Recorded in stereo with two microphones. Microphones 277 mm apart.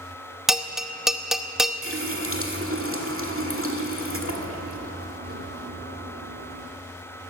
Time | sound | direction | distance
0.5 | a bell | centre (ahead or behind) | 0.7 m
1.8 | a running tap | 50° right (ahead or behind) | 1.6 m